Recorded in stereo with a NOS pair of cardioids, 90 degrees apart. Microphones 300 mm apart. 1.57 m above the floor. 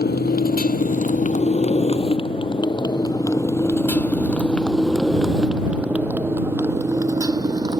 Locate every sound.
0.0 s a motorcycle: 30° left; by 7.8 s 15° right